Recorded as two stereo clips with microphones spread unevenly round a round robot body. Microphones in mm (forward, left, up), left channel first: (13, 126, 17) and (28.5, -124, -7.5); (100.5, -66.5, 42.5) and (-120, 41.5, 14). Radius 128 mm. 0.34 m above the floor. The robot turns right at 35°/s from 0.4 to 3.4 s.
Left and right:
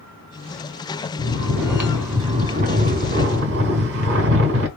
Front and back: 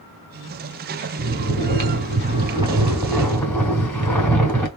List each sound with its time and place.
1.2 s snoring: 165° left, 2.5 m; by 4.7 s 115° right, 2.5 m